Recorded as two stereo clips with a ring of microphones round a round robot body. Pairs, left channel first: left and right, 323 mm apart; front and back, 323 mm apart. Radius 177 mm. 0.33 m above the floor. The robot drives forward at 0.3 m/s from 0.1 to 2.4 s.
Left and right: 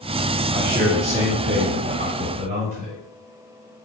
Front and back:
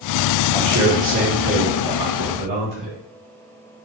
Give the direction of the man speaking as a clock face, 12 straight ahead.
4 o'clock.